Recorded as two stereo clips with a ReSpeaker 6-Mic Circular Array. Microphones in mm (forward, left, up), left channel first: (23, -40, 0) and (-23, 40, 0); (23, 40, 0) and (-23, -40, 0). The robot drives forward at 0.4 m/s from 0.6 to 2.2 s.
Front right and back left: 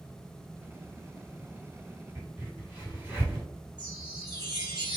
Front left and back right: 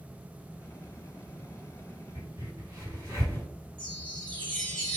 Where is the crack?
170° right, 1.9 m.